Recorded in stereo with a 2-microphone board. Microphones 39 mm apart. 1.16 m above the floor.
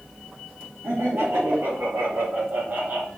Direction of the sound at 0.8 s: 70° right (ahead or behind).